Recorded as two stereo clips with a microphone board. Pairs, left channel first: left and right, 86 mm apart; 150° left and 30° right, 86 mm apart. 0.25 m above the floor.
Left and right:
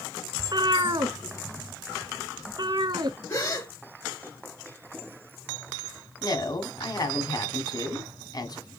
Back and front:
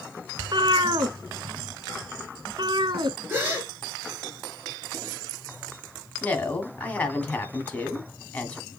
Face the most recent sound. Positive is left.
turn(degrees=80)